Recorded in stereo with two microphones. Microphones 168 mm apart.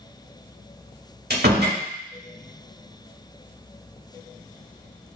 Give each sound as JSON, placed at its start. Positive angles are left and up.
{"t": 1.3, "sound": "a door slam", "side_deg": -70, "distance_m": 1.1}